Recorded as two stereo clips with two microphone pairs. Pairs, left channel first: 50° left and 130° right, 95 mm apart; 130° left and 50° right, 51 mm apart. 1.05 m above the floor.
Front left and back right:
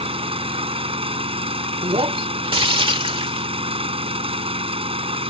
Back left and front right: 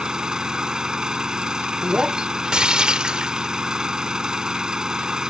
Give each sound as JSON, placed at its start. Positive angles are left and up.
{"t": 0.0, "sound": "an engine running", "azimuth_deg": -125}
{"t": 1.8, "sound": "breaking glass", "azimuth_deg": -125}